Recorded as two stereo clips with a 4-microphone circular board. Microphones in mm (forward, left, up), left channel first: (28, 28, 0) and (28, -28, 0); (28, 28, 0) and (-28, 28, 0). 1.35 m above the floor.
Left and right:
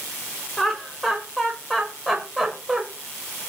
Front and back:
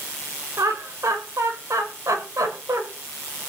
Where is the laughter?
175° left, 6 m; by 2.8 s 175° right, 7 m.